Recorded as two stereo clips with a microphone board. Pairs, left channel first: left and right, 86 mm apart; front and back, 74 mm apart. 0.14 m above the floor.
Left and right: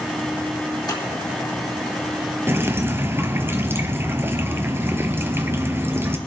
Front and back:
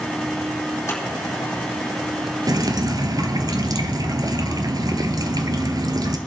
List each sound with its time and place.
0.9 s scissors: 55° left, 4 m
2.5 s dripping: 150° right, 1.0 m